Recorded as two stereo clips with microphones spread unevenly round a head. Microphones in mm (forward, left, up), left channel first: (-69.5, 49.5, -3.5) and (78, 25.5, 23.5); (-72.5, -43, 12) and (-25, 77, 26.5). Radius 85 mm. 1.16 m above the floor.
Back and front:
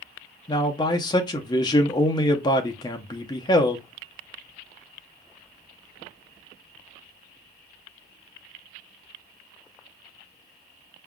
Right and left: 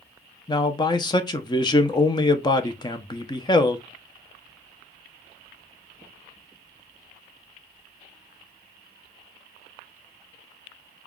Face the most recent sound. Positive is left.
turn(degrees=-145)